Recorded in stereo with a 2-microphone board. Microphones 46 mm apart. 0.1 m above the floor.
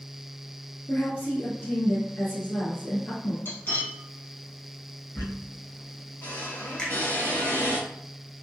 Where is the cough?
I don't hear a cough.